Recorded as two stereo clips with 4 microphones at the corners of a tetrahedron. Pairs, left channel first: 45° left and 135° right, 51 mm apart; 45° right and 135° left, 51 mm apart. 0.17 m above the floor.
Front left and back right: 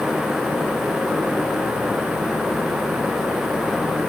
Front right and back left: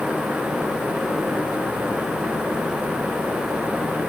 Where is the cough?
No cough in this recording.